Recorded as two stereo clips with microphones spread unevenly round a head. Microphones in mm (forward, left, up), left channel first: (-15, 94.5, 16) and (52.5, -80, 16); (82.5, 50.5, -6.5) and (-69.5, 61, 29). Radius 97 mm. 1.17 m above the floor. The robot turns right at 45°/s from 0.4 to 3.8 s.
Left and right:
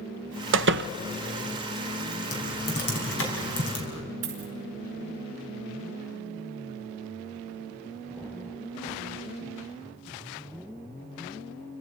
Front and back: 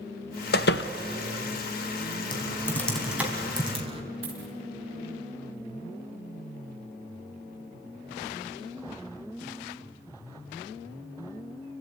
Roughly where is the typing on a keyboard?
Ahead left.